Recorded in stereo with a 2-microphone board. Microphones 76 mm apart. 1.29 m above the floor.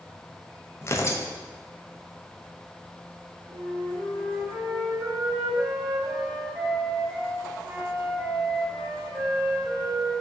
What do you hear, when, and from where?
0.8 s tearing paper: 35° left (ahead or behind), 0.6 m
3.5 s a flute: 35° right (ahead or behind), 2 m